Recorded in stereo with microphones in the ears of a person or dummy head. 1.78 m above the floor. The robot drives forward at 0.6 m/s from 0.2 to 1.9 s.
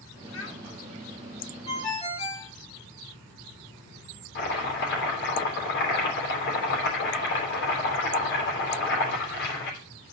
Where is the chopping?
65° left (ahead or behind), 3.5 m.